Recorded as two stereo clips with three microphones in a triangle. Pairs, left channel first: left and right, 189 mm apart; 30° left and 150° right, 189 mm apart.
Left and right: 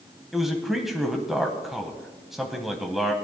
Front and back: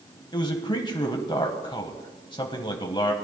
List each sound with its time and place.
0.3 s a man speaking: 5° right, 1.0 m